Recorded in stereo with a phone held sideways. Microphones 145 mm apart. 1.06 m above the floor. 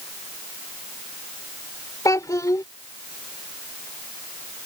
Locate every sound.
2.0 s a child speaking: 25° left (ahead or behind)